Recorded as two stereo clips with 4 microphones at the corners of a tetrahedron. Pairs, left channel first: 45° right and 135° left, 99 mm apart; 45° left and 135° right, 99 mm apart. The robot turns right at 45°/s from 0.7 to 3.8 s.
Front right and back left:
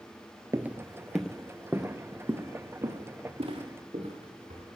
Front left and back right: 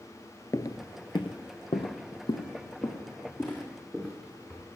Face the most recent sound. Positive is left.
turn(degrees=125)